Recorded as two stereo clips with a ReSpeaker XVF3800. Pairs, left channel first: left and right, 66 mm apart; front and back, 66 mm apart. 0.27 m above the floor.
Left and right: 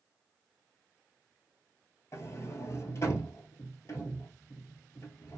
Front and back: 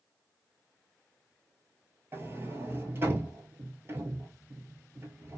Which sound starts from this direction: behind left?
A sliding door, at 2.1 s.